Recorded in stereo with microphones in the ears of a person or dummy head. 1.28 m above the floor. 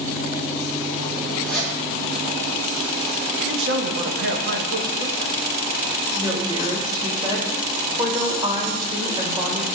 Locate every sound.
1.4 s a zipper: 10° left (ahead or behind), 2 m
3.4 s a man speaking: 80° right, 1.0 m
6.2 s a woman speaking: 20° right (ahead or behind), 1.3 m